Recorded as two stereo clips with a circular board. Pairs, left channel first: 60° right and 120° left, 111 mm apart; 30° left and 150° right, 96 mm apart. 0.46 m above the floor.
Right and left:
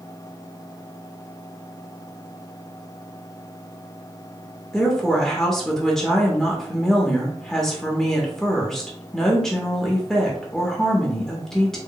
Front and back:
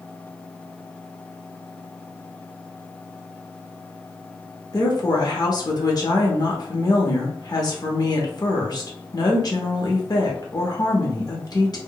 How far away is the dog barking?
I don't hear a dog barking.